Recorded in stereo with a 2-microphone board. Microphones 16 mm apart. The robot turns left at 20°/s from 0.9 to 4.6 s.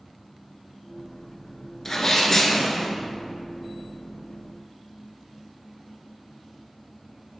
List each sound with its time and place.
1.9 s a sneeze: 30° left (ahead or behind), 1.2 m